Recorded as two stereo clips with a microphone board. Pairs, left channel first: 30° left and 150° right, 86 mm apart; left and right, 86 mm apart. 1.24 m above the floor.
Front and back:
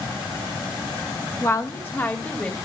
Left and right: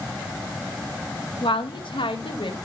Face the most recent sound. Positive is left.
turn(degrees=105)